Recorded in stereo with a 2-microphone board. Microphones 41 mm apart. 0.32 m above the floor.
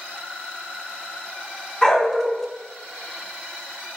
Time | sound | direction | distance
1.8 | a dog barking | 15° left (ahead or behind) | 0.9 m